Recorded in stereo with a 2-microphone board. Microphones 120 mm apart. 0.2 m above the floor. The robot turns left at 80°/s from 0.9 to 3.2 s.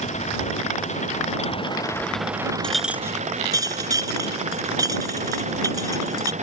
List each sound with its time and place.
0.0 s an engine running: 105° left; by 6.4 s 80° right
2.6 s a clink: 10° left (ahead or behind); by 6.3 s 30° right (ahead or behind)